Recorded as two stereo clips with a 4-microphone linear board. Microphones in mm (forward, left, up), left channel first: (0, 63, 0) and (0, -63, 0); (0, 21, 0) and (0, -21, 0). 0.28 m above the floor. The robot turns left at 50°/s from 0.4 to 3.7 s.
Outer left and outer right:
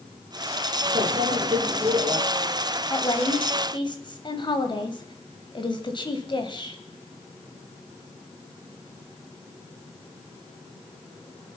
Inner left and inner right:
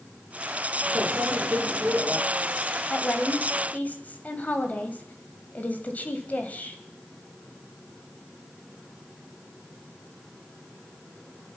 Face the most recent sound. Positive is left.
turn(degrees=75)